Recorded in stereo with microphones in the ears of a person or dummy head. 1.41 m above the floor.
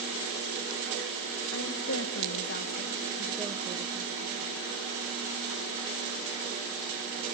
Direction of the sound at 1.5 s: 80° left.